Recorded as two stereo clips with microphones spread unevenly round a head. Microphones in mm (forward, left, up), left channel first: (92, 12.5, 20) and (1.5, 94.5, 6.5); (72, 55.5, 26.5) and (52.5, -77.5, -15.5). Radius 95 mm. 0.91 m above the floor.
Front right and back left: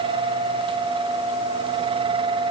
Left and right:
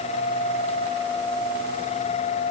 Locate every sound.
Only background noise.